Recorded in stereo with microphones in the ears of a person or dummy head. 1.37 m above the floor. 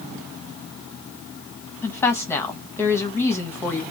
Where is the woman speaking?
15° left (ahead or behind), 0.9 m.